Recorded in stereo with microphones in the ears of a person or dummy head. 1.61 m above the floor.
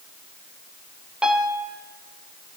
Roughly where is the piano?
Centre.